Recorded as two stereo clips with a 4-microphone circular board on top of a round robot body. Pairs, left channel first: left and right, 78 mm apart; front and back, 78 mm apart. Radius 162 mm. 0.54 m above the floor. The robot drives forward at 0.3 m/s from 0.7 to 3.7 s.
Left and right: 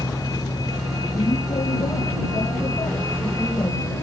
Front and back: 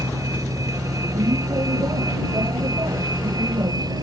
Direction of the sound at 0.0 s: 135° left.